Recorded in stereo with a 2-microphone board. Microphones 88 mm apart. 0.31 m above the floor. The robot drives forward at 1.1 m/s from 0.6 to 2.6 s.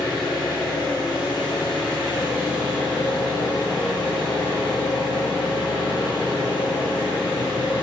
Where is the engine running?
60° left (ahead or behind), 3 m; by 7.8 s 75° left (ahead or behind), 2.5 m.